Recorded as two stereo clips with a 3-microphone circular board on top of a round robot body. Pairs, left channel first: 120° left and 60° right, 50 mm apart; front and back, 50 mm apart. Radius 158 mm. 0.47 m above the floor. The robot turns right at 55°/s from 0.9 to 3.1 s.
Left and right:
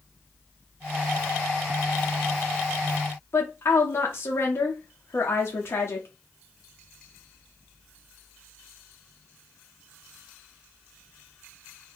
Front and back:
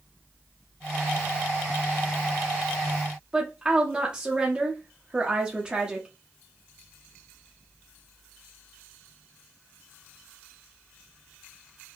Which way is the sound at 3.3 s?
115° left.